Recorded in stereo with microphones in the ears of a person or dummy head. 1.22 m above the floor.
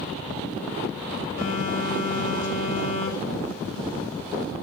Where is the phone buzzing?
90° left, 3 m.